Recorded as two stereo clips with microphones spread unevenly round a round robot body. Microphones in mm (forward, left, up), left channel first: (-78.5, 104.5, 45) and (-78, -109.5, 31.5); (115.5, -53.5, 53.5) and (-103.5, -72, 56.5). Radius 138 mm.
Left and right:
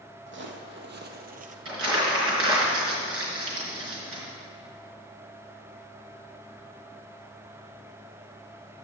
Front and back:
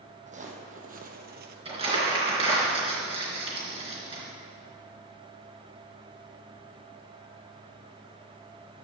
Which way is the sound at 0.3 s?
120° right.